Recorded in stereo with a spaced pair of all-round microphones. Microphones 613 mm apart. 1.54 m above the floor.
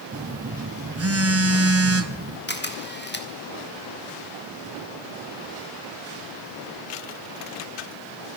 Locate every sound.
0.1 s a phone buzzing: 25° right (ahead or behind), 0.7 m
2.5 s a camera shutter: 15° left (ahead or behind), 1.5 m